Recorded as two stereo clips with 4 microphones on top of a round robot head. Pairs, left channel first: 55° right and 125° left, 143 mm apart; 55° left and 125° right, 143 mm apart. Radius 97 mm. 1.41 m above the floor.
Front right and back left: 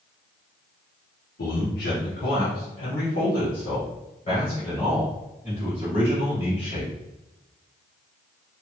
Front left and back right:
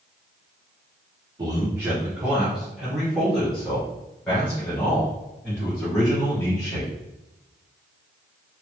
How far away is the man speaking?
About 1.1 m.